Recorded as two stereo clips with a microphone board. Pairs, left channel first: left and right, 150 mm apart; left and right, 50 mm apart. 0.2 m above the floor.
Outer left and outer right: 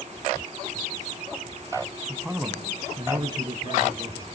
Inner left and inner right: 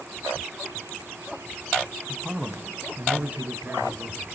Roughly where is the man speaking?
Centre.